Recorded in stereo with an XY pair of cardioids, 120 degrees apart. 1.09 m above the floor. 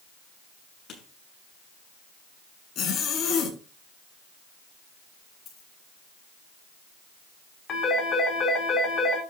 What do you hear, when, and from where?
0.9 s writing: 55° left, 7 m
2.8 s a zipper: 55° left, 7 m
5.5 s a dropped coin: 60° left, 7.5 m
7.7 s a phone ringing: 45° left, 5.5 m